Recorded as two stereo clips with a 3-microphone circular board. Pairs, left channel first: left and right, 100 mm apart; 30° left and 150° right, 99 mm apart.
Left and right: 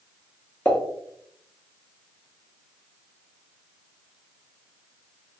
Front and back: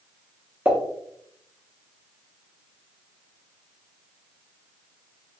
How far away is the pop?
About 0.7 m.